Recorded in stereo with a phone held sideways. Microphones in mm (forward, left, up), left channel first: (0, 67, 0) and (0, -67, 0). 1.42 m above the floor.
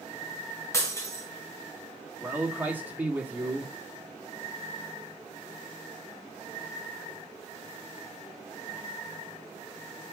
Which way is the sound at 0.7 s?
20° left (ahead or behind).